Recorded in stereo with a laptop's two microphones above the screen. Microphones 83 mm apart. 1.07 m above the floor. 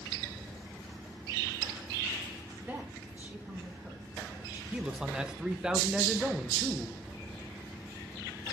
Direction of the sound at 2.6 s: 20° right (ahead or behind).